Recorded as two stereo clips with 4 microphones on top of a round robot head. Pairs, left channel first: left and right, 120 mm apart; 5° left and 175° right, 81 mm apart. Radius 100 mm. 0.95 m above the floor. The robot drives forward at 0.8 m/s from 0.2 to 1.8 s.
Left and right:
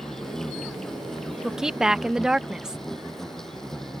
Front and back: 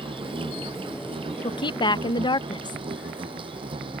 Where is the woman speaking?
5° right.